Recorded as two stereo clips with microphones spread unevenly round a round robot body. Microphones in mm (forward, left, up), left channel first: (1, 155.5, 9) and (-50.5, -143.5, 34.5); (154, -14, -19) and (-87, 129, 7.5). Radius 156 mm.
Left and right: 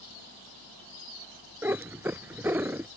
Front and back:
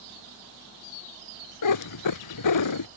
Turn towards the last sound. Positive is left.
turn(degrees=-15)